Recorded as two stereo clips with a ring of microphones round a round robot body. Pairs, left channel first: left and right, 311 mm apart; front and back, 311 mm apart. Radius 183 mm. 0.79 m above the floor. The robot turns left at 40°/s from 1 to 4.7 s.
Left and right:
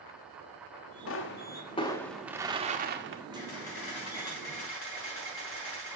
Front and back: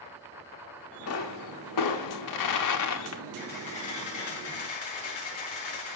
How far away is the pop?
About 1.3 m.